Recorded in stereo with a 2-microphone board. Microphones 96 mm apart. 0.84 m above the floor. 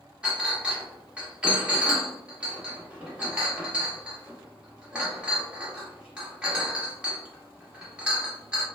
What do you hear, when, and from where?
0.2 s a clink: 10° right (ahead or behind), 0.9 m